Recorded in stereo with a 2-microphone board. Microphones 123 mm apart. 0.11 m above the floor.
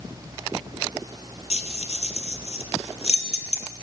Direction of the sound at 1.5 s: 60° left (ahead or behind).